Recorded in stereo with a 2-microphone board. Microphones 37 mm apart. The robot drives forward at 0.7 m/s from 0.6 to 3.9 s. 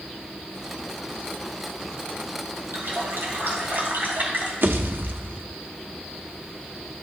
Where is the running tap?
75° right (ahead or behind), 2.5 m; by 4.5 s 60° right (ahead or behind), 3 m.